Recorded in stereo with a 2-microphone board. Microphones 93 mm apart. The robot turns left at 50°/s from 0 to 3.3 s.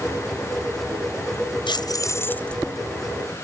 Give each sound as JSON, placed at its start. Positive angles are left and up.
{"t": 1.7, "sound": "keys jangling", "azimuth_deg": 55}